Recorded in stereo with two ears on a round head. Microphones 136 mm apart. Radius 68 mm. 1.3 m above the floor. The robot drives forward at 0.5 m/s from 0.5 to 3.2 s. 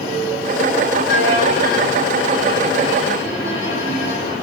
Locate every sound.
1.1 s a violin: 80° left, 5.5 m; by 4.3 s 70° left (ahead or behind), 6 m